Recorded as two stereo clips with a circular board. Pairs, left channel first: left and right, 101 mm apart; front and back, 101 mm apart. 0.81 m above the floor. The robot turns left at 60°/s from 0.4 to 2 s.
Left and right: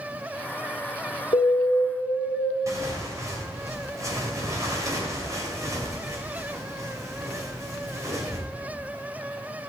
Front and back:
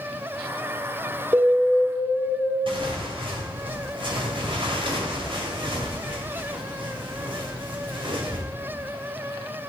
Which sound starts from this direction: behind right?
Tearing paper, at 2.7 s.